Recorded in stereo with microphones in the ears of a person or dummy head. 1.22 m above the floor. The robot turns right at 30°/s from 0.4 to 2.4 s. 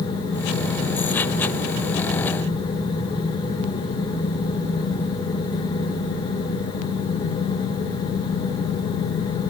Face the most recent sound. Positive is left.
No sound to turn to.